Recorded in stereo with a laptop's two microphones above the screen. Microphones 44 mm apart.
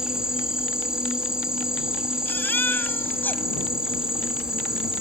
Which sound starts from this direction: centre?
An insect, at 0.0 s.